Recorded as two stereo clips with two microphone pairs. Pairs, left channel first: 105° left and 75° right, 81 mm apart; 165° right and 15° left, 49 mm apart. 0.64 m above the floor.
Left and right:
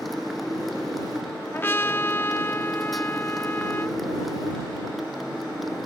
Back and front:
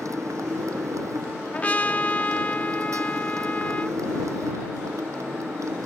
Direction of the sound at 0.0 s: 15° left.